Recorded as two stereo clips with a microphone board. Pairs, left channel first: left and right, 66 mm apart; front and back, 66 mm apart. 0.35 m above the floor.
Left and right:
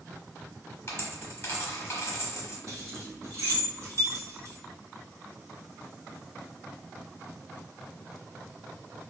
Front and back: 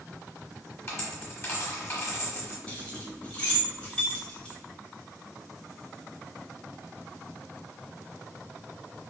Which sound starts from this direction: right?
Keys jangling, at 2.7 s.